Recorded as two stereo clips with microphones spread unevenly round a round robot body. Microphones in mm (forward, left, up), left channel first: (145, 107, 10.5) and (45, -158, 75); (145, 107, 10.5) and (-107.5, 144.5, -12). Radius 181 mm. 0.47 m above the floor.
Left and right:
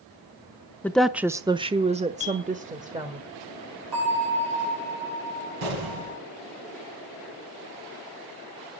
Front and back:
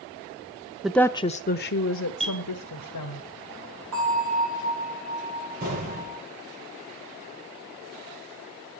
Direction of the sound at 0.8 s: 100° left.